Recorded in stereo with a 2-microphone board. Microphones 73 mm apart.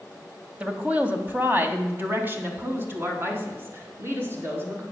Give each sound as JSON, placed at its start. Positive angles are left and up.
{"t": 0.6, "sound": "a woman speaking", "side_deg": -20, "distance_m": 1.2}